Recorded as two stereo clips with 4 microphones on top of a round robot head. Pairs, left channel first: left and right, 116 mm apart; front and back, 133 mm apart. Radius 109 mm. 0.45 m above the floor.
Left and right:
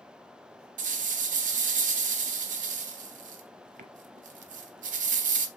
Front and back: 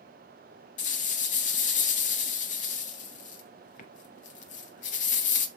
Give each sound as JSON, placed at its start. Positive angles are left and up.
{"t": 0.8, "sound": "a rattle", "azimuth_deg": -50, "distance_m": 0.5}